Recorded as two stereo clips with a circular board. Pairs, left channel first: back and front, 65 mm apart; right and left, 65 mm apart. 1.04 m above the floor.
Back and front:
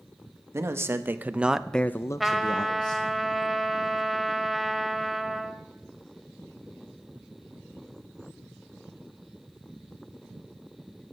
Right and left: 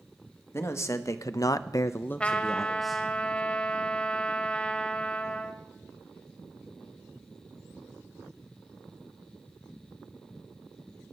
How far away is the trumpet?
About 0.8 m.